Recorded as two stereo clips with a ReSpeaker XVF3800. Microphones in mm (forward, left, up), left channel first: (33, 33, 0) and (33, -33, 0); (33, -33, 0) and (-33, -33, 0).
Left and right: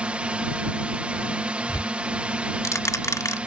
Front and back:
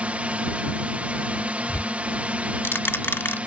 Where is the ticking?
55° left.